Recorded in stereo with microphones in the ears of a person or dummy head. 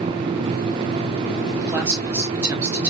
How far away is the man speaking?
About 1.9 m.